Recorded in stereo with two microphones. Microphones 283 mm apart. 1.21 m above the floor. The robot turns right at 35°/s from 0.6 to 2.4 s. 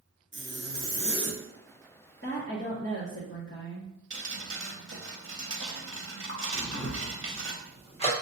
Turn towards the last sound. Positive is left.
turn(degrees=20)  # may be behind; listen again after turning